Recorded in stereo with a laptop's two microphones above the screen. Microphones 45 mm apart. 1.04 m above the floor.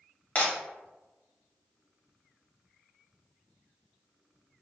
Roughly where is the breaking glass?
Left.